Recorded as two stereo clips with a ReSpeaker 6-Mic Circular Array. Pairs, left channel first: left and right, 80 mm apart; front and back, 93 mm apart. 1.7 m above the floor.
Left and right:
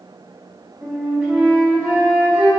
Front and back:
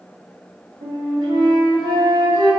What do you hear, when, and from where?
0.8 s a flute: 150° right, 2.5 m